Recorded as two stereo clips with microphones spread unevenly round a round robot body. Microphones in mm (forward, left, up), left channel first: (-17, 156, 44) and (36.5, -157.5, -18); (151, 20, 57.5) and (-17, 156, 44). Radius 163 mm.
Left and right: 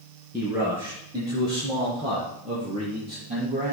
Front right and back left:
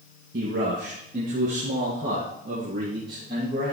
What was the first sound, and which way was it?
A man speaking, 165° right.